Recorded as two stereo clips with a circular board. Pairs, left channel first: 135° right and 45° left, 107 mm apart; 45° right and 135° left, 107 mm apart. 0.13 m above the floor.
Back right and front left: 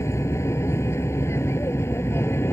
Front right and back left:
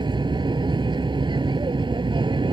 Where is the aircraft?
165° left.